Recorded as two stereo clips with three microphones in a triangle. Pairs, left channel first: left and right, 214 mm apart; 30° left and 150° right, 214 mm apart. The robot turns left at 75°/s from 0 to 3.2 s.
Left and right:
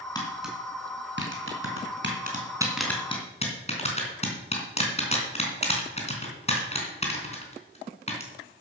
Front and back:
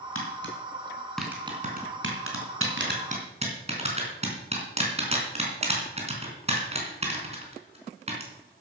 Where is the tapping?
20° left, 3.5 m; by 8.6 s 150° left, 3.5 m.